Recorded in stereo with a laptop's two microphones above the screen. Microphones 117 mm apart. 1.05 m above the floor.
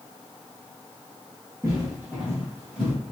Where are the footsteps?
25° right (ahead or behind), 1.2 m; by 2.9 s 5° right (ahead or behind), 1.7 m.